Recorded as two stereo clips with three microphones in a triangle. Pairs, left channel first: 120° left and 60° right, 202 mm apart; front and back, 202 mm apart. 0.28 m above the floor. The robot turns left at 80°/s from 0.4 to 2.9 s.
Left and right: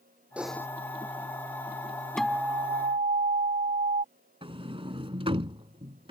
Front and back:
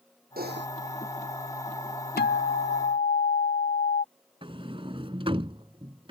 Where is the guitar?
35° left; by 4.0 s 25° right.